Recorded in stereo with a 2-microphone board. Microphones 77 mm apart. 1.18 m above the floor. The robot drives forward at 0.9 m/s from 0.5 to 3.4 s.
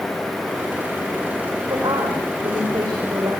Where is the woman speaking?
70° right (ahead or behind), 5 m; by 3.3 s 55° right (ahead or behind), 5.5 m.